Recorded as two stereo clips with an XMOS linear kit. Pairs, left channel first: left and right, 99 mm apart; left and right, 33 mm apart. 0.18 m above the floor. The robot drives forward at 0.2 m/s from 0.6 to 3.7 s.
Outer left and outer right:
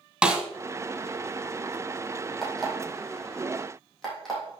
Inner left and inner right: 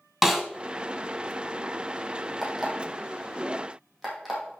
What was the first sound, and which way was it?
A snare drum, 10° right (ahead or behind).